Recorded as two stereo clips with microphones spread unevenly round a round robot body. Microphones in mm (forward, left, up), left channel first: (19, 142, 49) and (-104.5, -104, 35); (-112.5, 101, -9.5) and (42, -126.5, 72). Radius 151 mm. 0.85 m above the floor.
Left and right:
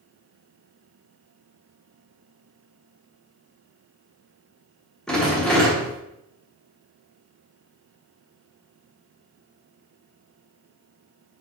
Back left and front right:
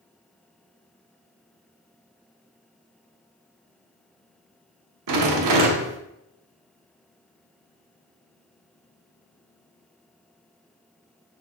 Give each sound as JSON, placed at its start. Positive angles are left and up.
{"t": 5.1, "sound": "a rattle", "azimuth_deg": -25, "distance_m": 1.0}